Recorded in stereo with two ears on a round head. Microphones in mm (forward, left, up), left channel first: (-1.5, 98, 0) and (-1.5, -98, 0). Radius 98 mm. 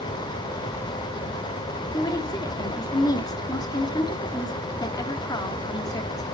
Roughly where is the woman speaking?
Centre.